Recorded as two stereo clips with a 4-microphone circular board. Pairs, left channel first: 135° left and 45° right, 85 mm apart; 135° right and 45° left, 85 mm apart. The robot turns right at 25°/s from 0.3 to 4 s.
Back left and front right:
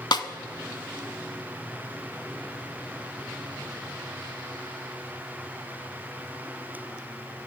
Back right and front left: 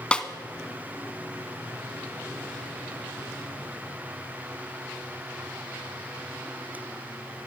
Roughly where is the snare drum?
Behind left.